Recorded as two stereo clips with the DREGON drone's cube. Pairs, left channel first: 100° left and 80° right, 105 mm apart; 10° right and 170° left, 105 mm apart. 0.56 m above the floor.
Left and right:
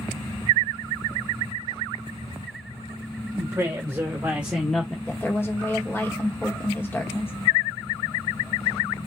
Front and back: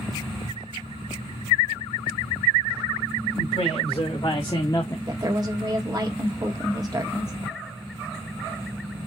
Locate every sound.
3.4 s a woman speaking: 25° right, 1.9 m; by 5.0 s 30° left, 1.0 m
5.1 s a woman speaking: 155° left, 1.3 m